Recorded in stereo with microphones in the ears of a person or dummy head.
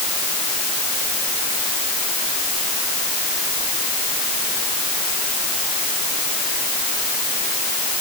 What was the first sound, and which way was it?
Only background noise.